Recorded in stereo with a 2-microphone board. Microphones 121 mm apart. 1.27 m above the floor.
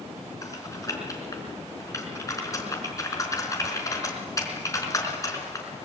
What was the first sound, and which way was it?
Typing on a keyboard, 25° left (ahead or behind).